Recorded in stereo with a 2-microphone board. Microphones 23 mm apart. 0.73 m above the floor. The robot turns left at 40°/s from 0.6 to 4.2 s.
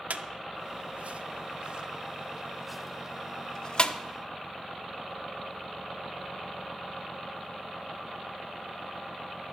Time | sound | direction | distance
0.1 | a squeak | 85° right | 0.5 m